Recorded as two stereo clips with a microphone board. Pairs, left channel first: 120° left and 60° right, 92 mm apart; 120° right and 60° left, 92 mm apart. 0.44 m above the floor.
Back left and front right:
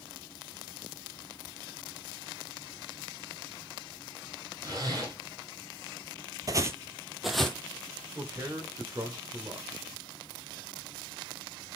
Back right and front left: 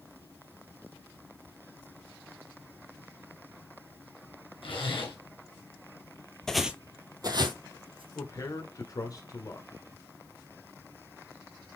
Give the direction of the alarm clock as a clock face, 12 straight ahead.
I don't hear an alarm clock.